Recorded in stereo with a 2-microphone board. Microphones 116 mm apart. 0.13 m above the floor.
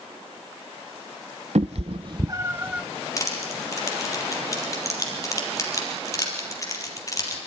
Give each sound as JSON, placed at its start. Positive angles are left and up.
{"t": 1.6, "sound": "a cat meowing", "side_deg": -75, "distance_m": 0.6}
{"t": 3.2, "sound": "crushing", "side_deg": 30, "distance_m": 4.0}